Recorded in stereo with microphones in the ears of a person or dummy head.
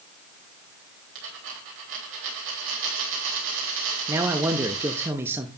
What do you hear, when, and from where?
1.1 s a dropped coin: 70° right (ahead or behind), 3.5 m
4.1 s a man speaking: 15° right (ahead or behind), 0.6 m